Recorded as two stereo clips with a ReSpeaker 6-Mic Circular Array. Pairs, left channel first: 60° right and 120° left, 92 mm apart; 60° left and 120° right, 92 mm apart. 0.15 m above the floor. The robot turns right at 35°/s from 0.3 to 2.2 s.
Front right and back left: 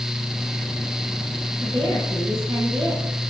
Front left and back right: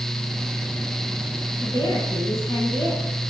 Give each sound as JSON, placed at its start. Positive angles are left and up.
{"t": 1.6, "sound": "a woman speaking", "azimuth_deg": 100, "distance_m": 4.5}